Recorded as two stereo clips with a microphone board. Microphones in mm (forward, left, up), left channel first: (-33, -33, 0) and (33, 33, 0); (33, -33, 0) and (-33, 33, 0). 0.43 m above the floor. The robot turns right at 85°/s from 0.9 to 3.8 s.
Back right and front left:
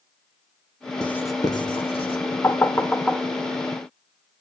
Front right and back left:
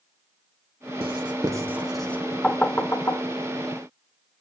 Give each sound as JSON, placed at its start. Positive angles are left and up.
{"t": 1.0, "sound": "writing", "azimuth_deg": 145, "distance_m": 1.4}
{"t": 2.4, "sound": "knocking", "azimuth_deg": -115, "distance_m": 0.8}